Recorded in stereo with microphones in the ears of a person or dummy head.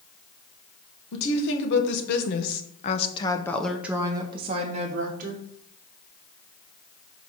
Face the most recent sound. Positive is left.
turn(degrees=-55)  # may be behind; listen again after turning